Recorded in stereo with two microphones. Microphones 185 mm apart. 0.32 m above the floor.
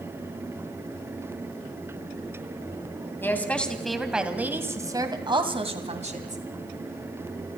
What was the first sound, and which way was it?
A woman speaking, 10° left (ahead or behind).